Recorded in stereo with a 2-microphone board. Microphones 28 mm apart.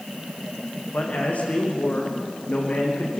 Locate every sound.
0.9 s a man speaking: 60° left (ahead or behind), 8 m